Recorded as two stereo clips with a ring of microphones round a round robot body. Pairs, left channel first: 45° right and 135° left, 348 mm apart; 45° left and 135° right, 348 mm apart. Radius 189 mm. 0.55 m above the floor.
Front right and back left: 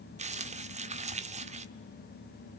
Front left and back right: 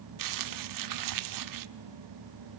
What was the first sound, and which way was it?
Crumpling, 155° right.